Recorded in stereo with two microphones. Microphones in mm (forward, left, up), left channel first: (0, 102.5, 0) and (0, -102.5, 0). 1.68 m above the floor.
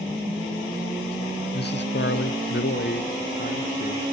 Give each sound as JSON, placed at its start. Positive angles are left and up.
{"t": 1.5, "sound": "a man speaking", "side_deg": 50, "distance_m": 0.8}